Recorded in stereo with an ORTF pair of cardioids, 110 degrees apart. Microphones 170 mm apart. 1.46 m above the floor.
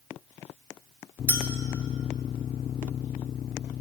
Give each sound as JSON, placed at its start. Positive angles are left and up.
{"t": 1.3, "sound": "a clink", "azimuth_deg": -10, "distance_m": 2.5}